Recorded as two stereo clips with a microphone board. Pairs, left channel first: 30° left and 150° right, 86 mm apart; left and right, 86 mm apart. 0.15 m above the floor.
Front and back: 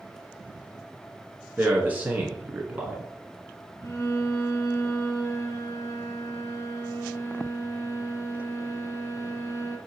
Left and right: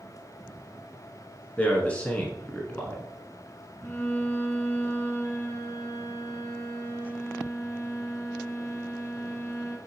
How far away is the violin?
About 1.7 m.